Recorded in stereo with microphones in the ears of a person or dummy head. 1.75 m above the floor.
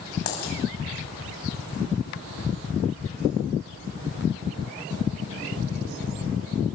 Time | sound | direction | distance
0.3 | a dropped coin | 55° left (ahead or behind) | 5.5 m